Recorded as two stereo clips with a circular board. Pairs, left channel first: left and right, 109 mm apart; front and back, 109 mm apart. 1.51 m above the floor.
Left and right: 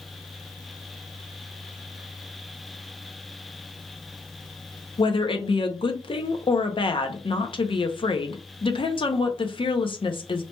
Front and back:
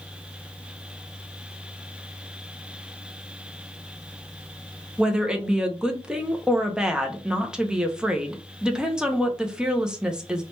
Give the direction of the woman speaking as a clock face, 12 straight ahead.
9 o'clock.